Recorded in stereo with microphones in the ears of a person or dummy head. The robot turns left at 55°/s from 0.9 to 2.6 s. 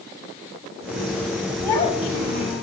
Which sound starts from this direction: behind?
A child speaking, at 1.6 s.